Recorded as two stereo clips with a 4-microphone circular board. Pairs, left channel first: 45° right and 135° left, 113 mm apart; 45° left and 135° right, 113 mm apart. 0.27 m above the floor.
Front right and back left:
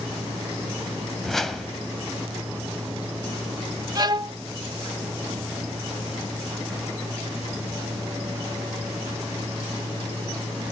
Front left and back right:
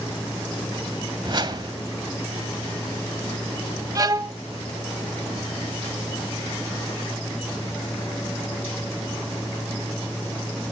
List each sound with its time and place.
1.2 s a whoosh: 130° right, 1.4 m
4.0 s a violin: 175° left, 0.5 m